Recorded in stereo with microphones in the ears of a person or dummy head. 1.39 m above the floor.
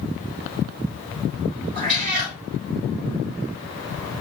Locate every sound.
1.8 s a cat meowing: 45° right (ahead or behind), 3 m